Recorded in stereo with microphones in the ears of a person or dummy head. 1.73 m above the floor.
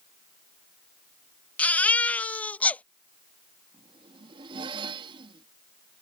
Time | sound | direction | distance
1.6 | a baby crying | 5° left (ahead or behind) | ?
3.7 | a zipper | 25° right (ahead or behind) | ?